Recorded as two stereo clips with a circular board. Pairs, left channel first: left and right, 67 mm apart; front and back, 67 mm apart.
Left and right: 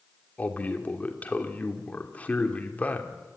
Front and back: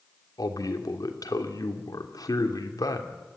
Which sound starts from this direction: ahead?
A man speaking, at 0.4 s.